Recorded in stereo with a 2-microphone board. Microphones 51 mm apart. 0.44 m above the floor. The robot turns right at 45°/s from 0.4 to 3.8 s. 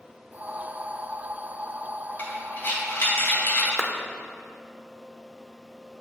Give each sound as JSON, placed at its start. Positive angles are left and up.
{"t": 2.2, "sound": "breathing", "side_deg": 40, "distance_m": 2.0}
{"t": 3.8, "sound": "a clap", "side_deg": -5, "distance_m": 0.6}